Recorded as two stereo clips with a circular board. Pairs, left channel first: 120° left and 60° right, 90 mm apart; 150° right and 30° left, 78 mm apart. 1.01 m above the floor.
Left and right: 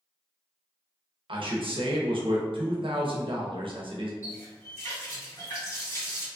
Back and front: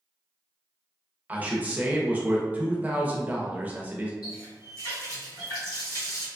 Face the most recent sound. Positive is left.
turn(degrees=175)